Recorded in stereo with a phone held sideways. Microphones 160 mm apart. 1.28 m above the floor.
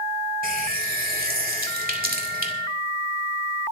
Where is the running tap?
65° right (ahead or behind), 2 m.